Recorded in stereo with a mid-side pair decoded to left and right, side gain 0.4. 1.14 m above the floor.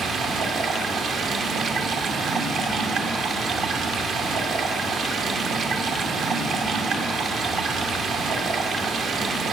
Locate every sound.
0.0 s running water: 70° right, 0.8 m